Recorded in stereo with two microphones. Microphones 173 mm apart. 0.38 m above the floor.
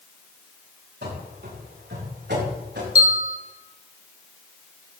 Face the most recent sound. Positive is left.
turn(degrees=-40)  # may be behind; listen again after turning